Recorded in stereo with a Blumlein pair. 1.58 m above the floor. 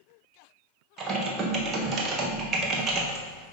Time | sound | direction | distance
1.0 | typing on a keyboard | 25° right | 1.2 m